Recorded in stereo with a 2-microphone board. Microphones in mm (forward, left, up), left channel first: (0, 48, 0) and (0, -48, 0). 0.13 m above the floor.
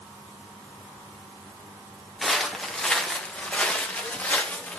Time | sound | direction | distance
2.2 | footsteps | centre (ahead or behind) | 2.0 m